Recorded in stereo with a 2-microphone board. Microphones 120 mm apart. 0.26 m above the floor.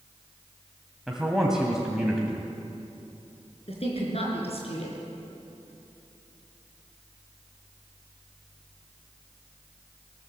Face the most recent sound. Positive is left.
turn(degrees=55)  # may be behind; listen again after turning